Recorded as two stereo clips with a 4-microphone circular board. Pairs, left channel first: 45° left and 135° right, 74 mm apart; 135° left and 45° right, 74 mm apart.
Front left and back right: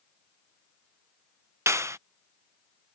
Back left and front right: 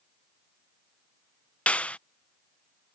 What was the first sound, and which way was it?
A clap, 160° right.